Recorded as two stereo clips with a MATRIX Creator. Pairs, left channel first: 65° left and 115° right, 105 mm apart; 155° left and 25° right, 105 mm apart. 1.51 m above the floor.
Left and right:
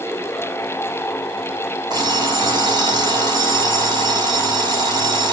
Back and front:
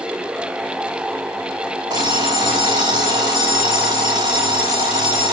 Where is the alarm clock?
70° right, 4 m.